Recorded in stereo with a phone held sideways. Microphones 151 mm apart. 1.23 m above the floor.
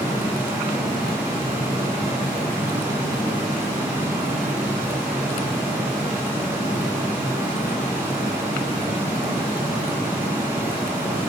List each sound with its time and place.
0.0 s a fan: 15° right (ahead or behind), 1.0 m